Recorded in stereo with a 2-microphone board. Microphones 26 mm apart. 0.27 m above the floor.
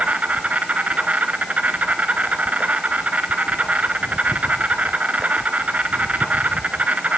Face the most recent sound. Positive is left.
turn(degrees=-70)  # may be behind; listen again after turning